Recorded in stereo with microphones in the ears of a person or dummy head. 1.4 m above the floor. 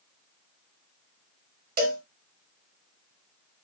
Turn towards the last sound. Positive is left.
turn(degrees=-40)  # may be behind; listen again after turning